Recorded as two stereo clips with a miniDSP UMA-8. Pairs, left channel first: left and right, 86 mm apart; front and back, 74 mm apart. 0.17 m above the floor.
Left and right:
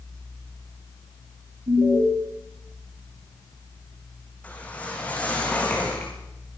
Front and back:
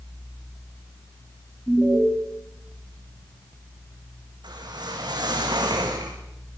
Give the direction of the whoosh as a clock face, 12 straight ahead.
7 o'clock.